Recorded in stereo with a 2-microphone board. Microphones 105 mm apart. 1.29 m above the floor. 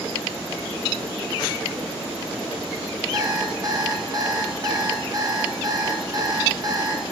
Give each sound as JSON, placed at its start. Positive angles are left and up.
{"t": 3.1, "sound": "an alarm clock", "side_deg": -35, "distance_m": 0.9}